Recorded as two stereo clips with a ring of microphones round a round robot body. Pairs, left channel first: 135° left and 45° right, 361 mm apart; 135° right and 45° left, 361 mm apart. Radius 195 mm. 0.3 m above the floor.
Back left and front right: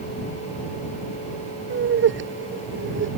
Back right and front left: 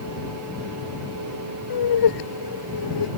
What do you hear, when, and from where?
1.7 s laughter: 105° right